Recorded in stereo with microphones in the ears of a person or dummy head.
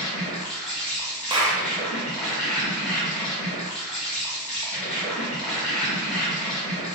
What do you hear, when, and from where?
0.0 s an insect: centre (ahead or behind), 1.0 m
1.3 s a clap: 20° right (ahead or behind), 0.5 m